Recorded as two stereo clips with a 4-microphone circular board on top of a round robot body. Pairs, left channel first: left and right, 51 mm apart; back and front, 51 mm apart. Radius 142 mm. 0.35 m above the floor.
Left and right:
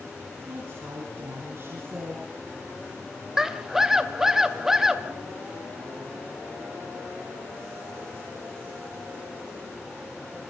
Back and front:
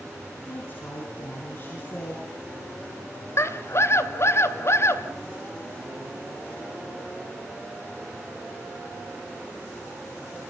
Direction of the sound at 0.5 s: 130° right.